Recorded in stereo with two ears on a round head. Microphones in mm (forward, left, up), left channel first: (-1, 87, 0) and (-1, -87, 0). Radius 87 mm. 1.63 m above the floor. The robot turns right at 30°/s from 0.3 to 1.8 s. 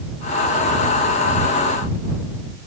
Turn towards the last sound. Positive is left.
No sound to turn to.